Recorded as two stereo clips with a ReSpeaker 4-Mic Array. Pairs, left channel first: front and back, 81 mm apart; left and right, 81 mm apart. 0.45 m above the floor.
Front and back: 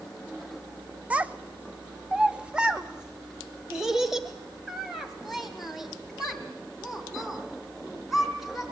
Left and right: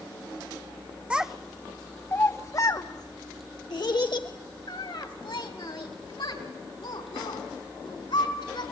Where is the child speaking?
140° right, 0.7 m; by 8.6 s 90° left, 4 m.